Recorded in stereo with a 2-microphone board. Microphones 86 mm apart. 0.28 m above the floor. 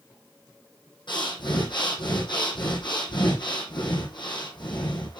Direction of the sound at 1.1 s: 65° left (ahead or behind).